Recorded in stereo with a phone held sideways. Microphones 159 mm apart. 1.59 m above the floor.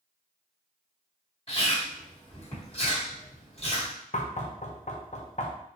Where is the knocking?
50° left (ahead or behind), 0.8 m.